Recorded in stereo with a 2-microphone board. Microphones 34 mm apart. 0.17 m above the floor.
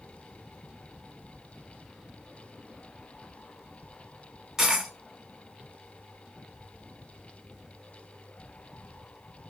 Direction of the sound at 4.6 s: 10° right (ahead or behind).